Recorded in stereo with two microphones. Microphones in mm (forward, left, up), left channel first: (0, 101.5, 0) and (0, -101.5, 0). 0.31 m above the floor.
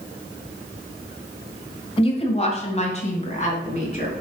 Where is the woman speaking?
30° left (ahead or behind), 1.8 m; by 4.1 s 35° left (ahead or behind), 4 m.